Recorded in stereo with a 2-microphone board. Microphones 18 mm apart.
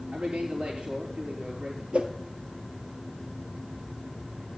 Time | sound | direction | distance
0.1 | a man speaking | 65° right (ahead or behind) | 4.5 m
1.9 | a whoosh | 80° right | 1.6 m